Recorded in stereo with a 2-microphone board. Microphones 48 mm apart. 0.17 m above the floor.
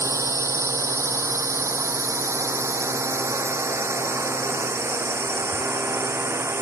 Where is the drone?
75° right (ahead or behind); by 6.6 s 55° right (ahead or behind).